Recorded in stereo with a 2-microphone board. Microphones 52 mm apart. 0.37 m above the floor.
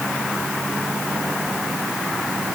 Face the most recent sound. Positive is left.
No sound to turn to.